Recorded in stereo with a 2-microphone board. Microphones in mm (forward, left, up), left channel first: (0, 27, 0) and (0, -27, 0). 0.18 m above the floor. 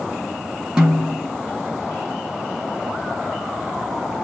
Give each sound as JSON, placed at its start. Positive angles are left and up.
{"t": 0.8, "sound": "a snare drum", "side_deg": -15, "distance_m": 2.0}